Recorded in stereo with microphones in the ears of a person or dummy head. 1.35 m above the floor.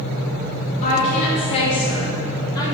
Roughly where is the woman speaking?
Left.